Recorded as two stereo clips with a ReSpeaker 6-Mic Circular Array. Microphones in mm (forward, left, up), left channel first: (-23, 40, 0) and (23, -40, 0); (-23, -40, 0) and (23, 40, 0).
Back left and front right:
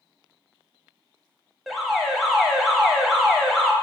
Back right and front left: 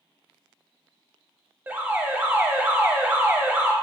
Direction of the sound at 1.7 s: 30° left.